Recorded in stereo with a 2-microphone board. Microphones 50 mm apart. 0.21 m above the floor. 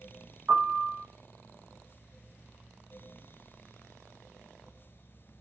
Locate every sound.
0.5 s a piano: 50° right (ahead or behind), 0.8 m